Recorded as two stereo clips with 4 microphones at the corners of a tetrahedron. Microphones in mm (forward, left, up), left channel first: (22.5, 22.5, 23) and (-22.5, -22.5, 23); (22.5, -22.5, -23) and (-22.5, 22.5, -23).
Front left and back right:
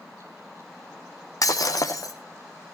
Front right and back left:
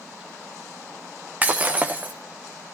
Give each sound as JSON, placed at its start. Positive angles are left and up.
{"t": 1.4, "sound": "breaking glass", "azimuth_deg": 70, "distance_m": 1.9}